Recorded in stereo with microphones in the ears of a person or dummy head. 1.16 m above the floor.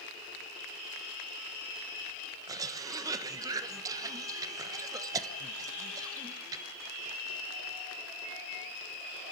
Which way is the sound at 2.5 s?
25° right (ahead or behind).